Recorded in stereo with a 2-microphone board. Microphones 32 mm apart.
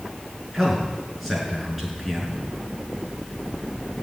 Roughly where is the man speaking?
Centre.